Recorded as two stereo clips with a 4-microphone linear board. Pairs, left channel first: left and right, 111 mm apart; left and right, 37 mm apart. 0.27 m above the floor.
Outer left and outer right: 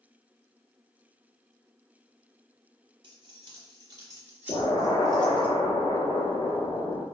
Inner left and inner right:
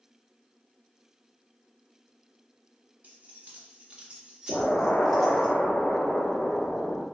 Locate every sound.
3.0 s keys jangling: 45° right (ahead or behind), 1.1 m; by 5.5 s 10° left (ahead or behind), 1.0 m
4.5 s an explosion: 60° left (ahead or behind), 0.7 m